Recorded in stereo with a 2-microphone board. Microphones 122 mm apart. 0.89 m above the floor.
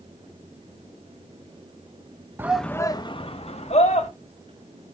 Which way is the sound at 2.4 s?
20° right (ahead or behind).